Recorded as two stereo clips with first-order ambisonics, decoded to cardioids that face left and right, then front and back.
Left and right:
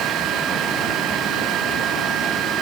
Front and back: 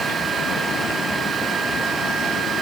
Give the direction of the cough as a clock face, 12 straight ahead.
No cough in this recording.